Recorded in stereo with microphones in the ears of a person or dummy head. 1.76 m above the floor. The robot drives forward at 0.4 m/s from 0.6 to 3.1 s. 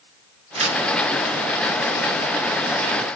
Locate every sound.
0.6 s tearing paper: 35° right (ahead or behind), 0.7 m; by 0.8 s 30° right (ahead or behind), 0.8 m